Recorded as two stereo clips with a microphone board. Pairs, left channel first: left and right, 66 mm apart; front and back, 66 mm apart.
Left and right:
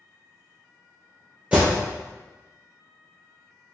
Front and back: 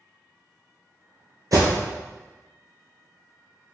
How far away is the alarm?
About 1.6 m.